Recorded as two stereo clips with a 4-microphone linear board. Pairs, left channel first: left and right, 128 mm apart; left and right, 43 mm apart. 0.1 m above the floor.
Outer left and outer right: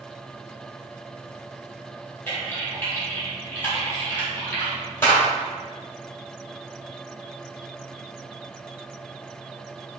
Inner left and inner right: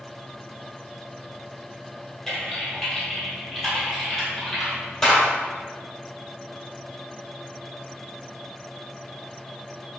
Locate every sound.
2.3 s typing on a keyboard: 15° left (ahead or behind), 1.6 m